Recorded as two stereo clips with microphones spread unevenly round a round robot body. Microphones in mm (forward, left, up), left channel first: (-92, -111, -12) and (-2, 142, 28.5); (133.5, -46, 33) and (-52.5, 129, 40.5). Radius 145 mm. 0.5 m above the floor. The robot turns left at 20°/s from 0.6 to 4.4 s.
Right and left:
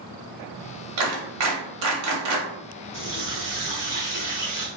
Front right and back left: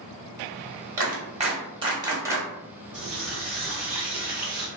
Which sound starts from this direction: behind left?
A running tap, at 2.9 s.